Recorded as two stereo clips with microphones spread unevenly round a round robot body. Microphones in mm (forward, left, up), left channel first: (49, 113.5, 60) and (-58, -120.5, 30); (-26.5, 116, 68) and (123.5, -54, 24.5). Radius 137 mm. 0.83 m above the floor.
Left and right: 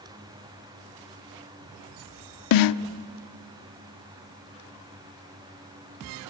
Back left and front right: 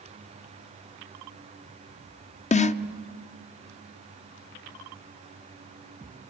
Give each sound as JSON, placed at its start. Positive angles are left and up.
{"t": 2.5, "sound": "a snare drum", "azimuth_deg": 70, "distance_m": 0.7}